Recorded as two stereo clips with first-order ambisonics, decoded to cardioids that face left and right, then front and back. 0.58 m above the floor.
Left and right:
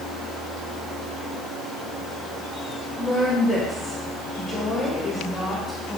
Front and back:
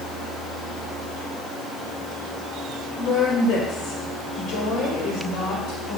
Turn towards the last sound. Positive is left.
turn(degrees=15)